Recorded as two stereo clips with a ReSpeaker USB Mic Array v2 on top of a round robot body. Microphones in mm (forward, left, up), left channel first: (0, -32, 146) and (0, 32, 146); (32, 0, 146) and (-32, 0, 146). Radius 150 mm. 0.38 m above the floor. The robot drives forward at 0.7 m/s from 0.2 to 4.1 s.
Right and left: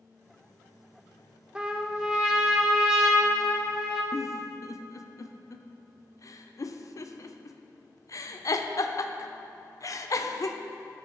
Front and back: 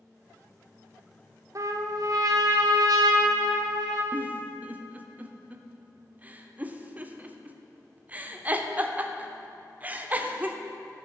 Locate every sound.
1.6 s a trumpet: 165° left, 0.8 m; by 4.0 s 175° left, 2.5 m
4.1 s a giggle: 115° right, 0.7 m